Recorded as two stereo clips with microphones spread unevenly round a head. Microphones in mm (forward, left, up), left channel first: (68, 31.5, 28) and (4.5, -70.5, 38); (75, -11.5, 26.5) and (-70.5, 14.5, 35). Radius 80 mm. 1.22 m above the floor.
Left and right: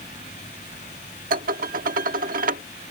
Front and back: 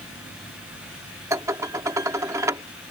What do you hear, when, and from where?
1.3 s dishes clattering: 120° right